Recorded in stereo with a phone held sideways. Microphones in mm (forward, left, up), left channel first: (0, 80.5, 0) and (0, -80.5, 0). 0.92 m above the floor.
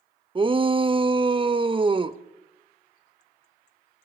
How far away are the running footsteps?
No running footsteps in this recording.